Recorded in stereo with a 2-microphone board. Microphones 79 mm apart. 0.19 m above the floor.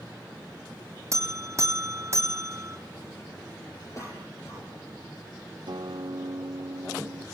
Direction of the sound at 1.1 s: 40° right (ahead or behind).